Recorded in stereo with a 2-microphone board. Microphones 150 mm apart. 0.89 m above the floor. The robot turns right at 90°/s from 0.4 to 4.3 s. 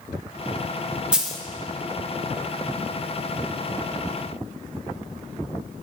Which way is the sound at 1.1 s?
5° right (ahead or behind).